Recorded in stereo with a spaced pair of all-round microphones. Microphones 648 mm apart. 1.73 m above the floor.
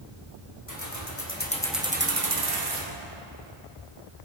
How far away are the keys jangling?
About 1.5 m.